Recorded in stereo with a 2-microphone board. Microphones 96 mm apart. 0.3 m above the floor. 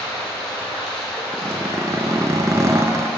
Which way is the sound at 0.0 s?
5° left (ahead or behind).